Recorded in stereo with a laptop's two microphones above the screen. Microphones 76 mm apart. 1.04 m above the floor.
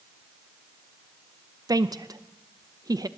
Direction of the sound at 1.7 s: 55° right (ahead or behind).